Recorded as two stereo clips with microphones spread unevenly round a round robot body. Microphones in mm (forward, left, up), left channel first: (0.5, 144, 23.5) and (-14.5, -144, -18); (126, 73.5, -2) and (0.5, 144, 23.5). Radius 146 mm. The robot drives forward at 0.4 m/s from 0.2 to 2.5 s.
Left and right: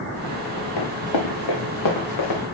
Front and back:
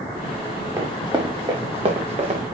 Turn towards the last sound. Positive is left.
turn(degrees=120)